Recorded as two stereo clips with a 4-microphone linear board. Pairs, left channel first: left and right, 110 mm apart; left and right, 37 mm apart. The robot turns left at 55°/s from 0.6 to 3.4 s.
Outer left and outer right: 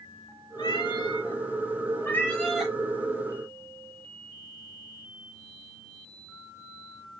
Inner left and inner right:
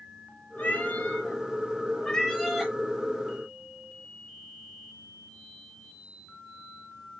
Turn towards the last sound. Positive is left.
turn(degrees=-45)